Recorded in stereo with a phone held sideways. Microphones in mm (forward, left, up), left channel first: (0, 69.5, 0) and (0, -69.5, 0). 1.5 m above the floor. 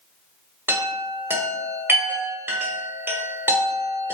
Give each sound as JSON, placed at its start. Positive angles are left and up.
{"t": 0.7, "sound": "a chime", "side_deg": -15, "distance_m": 1.3}